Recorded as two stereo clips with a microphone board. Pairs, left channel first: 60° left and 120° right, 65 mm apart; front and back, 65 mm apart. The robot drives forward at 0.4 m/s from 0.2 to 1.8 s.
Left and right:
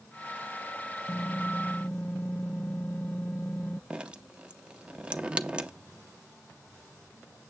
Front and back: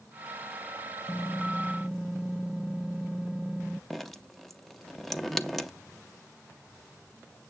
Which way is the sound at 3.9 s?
80° right.